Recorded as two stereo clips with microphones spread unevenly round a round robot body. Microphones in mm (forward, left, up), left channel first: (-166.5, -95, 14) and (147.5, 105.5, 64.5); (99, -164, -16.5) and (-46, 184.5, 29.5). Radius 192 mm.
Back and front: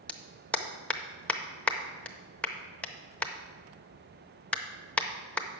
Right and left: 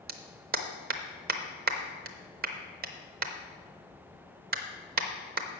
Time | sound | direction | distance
0.1 | a clap | 155° left | 0.6 m